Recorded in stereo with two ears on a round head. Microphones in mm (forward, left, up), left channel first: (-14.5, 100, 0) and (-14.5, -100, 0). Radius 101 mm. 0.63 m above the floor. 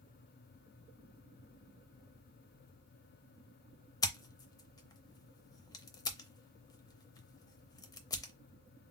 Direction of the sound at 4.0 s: 15° left (ahead or behind).